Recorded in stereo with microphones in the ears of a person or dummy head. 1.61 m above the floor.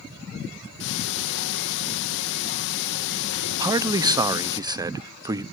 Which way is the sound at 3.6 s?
25° right (ahead or behind).